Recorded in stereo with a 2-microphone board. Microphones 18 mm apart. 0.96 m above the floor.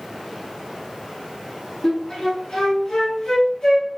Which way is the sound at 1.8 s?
45° left (ahead or behind).